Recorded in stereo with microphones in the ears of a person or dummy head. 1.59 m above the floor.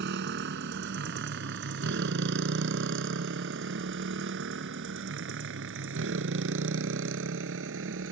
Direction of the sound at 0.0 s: 60° right (ahead or behind).